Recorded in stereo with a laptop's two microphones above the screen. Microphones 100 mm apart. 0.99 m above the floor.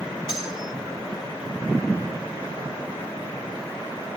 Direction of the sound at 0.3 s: 10° right (ahead or behind).